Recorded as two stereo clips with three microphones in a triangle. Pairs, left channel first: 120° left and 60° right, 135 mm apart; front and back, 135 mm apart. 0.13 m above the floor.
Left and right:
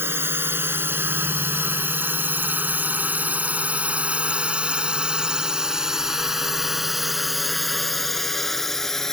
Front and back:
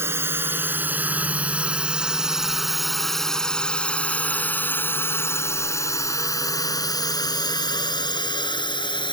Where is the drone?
120° right; by 9.1 s 35° left.